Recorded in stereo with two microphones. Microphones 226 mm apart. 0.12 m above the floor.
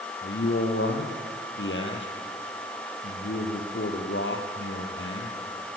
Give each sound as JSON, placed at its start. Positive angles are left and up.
{"t": 0.2, "sound": "a man speaking", "side_deg": 60, "distance_m": 4.0}